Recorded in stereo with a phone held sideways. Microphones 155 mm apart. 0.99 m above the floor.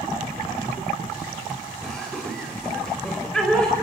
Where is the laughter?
5° left (ahead or behind), 5 m.